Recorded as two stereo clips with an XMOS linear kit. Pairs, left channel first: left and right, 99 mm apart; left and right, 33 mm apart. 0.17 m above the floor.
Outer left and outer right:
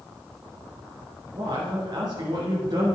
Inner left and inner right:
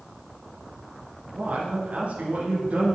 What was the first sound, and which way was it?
A man speaking, 45° right (ahead or behind).